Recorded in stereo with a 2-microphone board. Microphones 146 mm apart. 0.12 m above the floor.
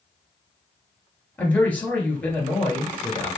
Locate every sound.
1.4 s a man speaking: 10° left (ahead or behind), 1.9 m